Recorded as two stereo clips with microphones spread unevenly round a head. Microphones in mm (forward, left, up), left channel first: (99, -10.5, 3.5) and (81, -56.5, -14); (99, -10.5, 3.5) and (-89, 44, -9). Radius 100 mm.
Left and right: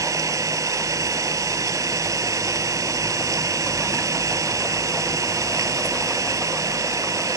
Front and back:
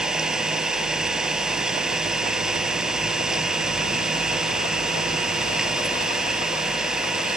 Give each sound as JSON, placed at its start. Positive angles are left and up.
{"t": 0.0, "sound": "an engine running", "azimuth_deg": -110}